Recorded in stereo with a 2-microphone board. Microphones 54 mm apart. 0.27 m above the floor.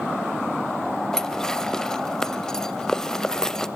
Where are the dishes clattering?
10° left (ahead or behind), 0.6 m.